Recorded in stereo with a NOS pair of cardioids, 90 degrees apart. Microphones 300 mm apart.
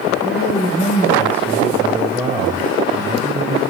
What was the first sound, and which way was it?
A man speaking, 25° left.